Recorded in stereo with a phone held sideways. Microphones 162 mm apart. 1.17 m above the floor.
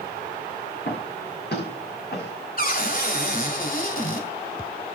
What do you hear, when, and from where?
0.8 s footsteps: 75° left (ahead or behind), 7 m; by 2.3 s 70° left (ahead or behind), 6 m
2.6 s a cupboard door: 55° left (ahead or behind), 2.5 m